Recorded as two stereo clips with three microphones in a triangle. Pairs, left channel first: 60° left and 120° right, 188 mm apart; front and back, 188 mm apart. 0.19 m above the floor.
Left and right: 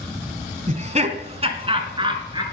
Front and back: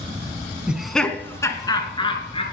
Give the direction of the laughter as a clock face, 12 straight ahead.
3 o'clock.